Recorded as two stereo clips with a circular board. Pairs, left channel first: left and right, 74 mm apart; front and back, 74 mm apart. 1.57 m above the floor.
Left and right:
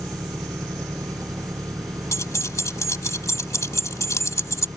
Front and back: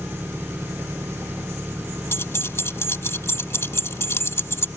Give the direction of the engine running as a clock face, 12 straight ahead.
4 o'clock.